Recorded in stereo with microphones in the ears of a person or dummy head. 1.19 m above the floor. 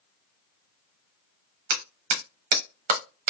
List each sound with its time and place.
1.7 s a clap: 45° right (ahead or behind), 0.7 m